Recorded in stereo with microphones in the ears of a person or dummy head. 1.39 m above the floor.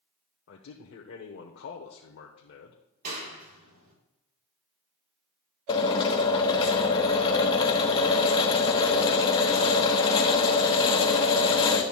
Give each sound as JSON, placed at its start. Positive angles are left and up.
{"t": 0.5, "sound": "a man speaking", "side_deg": 60, "distance_m": 1.1}
{"t": 3.0, "sound": "a clap", "side_deg": -50, "distance_m": 3.0}
{"t": 5.7, "sound": "a drill", "side_deg": 25, "distance_m": 1.1}